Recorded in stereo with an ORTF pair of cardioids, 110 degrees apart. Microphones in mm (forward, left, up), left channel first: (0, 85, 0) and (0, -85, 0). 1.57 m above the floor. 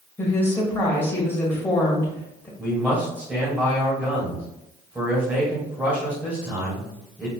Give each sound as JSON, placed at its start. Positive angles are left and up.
{"t": 0.2, "sound": "a woman speaking", "azimuth_deg": 15, "distance_m": 1.9}
{"t": 2.6, "sound": "a man speaking", "azimuth_deg": -10, "distance_m": 1.9}